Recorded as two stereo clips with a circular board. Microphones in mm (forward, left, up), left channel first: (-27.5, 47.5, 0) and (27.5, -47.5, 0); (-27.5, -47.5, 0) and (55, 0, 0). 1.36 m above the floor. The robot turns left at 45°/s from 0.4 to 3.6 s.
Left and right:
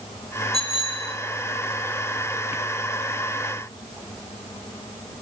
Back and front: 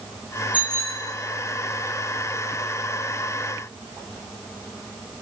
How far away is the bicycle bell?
About 2.5 m.